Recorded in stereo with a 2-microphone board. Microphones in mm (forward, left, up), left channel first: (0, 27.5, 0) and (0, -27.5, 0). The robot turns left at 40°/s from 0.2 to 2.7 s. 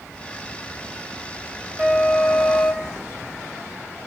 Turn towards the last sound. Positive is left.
turn(degrees=175)